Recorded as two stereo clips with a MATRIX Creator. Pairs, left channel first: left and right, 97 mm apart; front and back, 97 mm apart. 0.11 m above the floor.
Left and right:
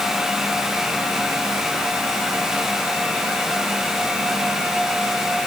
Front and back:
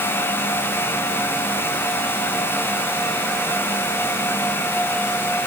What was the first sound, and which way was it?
Only background noise.